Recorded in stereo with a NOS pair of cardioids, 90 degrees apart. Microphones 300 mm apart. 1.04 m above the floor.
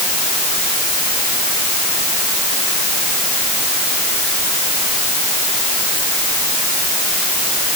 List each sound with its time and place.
Only background noise.